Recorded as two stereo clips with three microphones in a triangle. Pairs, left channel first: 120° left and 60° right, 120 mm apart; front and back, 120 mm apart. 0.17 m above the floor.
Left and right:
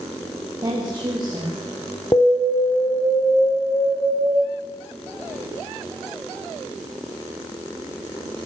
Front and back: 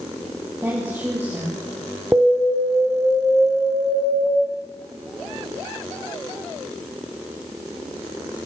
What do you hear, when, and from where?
0.6 s a woman speaking: 110° right, 5.5 m
2.1 s an alarm: 130° left, 2 m